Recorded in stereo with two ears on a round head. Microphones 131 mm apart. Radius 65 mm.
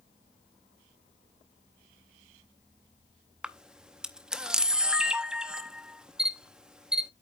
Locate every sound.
3.4 s a camera shutter: 5° right (ahead or behind), 0.7 m